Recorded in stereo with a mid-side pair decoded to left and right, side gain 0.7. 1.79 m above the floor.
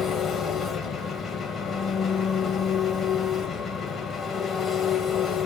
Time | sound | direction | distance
0.0 | an engine running | 40° left | 1.9 m